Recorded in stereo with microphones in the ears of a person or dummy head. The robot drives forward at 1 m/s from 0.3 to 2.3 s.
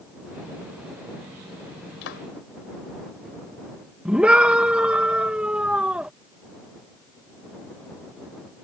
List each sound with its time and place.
2.0 s a clap: 65° left (ahead or behind); by 2.2 s 70° left (ahead or behind)
4.0 s a scream: 5° right (ahead or behind)